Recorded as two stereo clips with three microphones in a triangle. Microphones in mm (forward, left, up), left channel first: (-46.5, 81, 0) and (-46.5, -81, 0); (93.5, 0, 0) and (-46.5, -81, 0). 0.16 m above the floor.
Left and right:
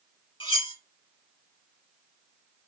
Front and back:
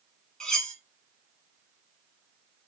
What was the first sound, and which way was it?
Cutlery clinking, 115° left.